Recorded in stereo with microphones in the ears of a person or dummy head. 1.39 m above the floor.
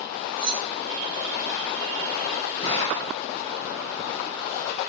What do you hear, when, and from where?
0.4 s keys jangling: 35° right (ahead or behind), 4 m
2.6 s a gunshot: 35° left (ahead or behind), 3.5 m